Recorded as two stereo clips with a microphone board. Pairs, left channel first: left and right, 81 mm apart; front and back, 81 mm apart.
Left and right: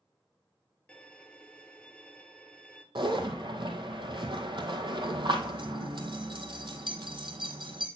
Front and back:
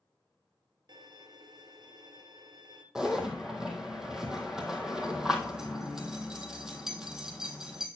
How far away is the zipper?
About 1.5 m.